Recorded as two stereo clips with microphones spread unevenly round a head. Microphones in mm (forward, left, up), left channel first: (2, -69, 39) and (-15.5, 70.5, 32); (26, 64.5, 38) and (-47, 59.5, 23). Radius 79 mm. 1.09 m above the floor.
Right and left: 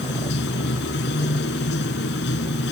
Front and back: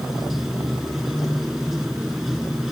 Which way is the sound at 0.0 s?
85° right.